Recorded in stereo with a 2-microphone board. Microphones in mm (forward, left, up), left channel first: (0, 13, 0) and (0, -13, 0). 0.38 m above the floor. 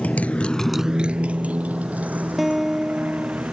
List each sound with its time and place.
0.0 s a motorcycle: 75° left (ahead or behind); by 3.5 s 75° right (ahead or behind)
2.4 s a guitar: 5° right (ahead or behind)